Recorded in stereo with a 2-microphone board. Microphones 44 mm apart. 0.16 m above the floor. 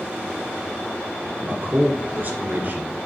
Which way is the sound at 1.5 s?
45° right (ahead or behind).